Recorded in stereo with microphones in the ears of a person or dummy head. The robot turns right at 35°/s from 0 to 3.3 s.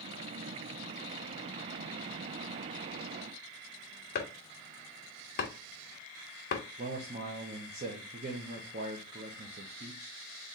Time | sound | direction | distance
4.2 | chopping | 45° left (ahead or behind) | 0.9 m
6.8 | a man speaking | 35° right (ahead or behind) | 0.8 m